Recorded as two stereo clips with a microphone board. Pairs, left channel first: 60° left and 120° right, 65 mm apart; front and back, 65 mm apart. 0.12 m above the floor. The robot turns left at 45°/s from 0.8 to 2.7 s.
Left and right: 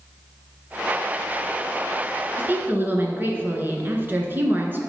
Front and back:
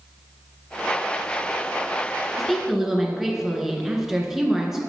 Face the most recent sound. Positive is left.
turn(degrees=-105)